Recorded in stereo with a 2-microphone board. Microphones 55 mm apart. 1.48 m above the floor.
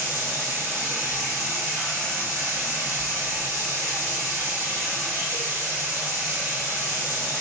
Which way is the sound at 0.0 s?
55° right (ahead or behind).